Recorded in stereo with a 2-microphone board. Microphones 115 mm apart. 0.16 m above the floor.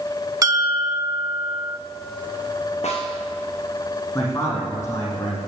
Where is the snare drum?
75° left (ahead or behind), 4.5 m.